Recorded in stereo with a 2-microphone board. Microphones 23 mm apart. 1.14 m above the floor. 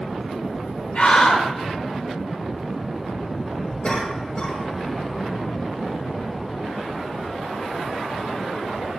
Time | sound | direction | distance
0.9 | a scream | 60° left (ahead or behind) | 1.7 m
3.8 | a cough | 45° left (ahead or behind) | 5 m